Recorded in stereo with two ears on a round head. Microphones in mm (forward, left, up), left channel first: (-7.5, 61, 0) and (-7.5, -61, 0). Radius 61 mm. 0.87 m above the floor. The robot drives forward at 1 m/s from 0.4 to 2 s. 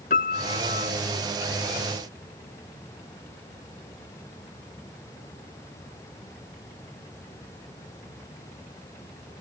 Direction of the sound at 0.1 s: 60° left (ahead or behind).